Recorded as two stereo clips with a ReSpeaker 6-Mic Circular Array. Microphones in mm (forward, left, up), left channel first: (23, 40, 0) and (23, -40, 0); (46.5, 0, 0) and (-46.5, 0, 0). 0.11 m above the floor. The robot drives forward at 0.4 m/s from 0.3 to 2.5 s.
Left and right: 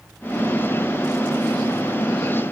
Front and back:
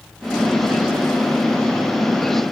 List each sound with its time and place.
Only background noise.